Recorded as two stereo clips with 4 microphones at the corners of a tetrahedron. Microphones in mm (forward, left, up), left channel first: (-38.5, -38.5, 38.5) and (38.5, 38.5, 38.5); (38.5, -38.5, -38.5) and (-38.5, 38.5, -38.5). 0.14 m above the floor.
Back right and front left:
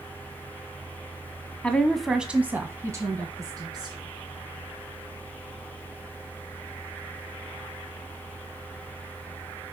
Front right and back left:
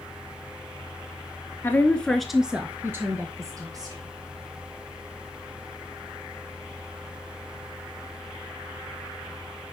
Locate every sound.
1.6 s a woman speaking: 75° right, 1.1 m; by 4.0 s 90° left, 1.9 m